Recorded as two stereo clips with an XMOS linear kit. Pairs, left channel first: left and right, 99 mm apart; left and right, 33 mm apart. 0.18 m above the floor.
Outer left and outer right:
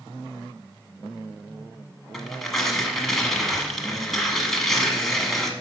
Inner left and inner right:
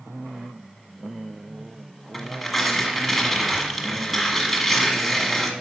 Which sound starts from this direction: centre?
Tearing paper, at 2.1 s.